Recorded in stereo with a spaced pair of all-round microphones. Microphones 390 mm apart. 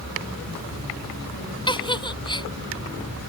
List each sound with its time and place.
1.7 s a giggle: 10° left (ahead or behind)